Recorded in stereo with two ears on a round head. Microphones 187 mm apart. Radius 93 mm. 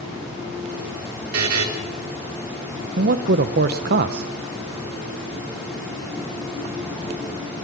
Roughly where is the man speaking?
Right.